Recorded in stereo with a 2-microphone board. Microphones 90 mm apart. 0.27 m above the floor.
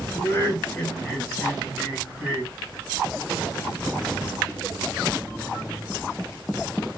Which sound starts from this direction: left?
Laughter, at 0.1 s.